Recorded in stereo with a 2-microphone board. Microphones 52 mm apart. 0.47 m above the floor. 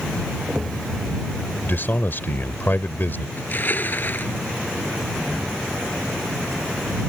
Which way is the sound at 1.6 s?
45° left (ahead or behind).